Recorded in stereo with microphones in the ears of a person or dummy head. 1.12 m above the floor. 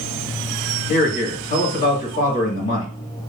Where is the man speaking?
45° left (ahead or behind), 1.8 m.